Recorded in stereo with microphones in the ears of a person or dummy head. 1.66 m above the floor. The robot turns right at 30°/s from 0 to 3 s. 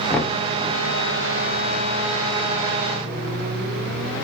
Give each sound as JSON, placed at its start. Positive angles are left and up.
{"t": 0.1, "sound": "knocking", "side_deg": 10, "distance_m": 0.8}